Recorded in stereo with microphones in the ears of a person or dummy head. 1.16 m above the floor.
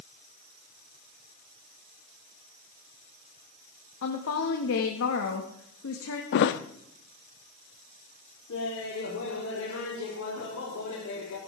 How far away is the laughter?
About 3.5 m.